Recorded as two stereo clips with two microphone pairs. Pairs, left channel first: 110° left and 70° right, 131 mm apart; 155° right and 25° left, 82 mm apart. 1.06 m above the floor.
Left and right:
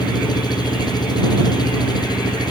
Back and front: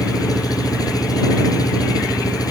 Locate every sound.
0.0 s an engine running: 165° left